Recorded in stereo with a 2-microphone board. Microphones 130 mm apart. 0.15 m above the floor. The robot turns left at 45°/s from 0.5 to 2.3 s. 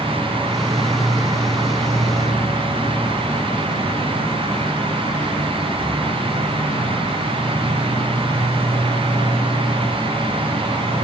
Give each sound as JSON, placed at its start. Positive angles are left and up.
{"t": 0.0, "sound": "an insect", "azimuth_deg": -165, "distance_m": 3.0}